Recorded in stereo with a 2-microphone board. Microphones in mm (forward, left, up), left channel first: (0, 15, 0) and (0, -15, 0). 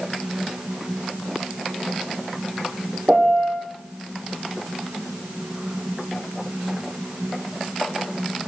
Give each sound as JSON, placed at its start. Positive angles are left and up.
{"t": 3.1, "sound": "a piano", "side_deg": -50, "distance_m": 2.5}